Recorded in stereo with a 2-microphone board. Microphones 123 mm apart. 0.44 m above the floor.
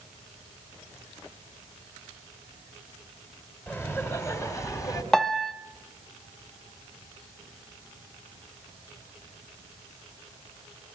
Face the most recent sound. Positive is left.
turn(degrees=5)  # may be behind; listen again after turning